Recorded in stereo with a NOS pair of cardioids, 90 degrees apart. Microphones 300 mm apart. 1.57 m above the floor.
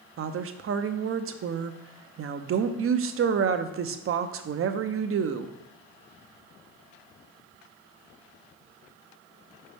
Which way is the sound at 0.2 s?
45° right.